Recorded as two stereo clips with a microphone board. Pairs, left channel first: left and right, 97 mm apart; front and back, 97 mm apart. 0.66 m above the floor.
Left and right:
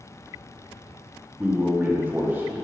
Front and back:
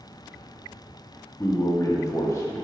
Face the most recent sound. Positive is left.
turn(degrees=-30)